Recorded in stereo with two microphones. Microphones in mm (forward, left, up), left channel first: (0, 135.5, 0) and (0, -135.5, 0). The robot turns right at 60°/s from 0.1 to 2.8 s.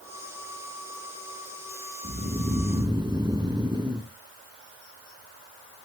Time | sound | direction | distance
2.0 | snoring | 25° right (ahead or behind) | 0.7 m